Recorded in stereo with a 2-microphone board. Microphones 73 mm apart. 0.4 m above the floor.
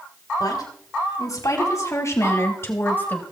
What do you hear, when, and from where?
0.4 s a woman speaking: 60° left (ahead or behind), 3 m; by 3.2 s 20° left (ahead or behind), 1.9 m